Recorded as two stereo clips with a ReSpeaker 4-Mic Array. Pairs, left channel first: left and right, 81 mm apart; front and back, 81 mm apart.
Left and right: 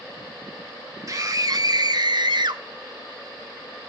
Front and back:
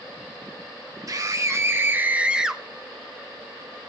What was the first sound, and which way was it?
A scream, 135° right.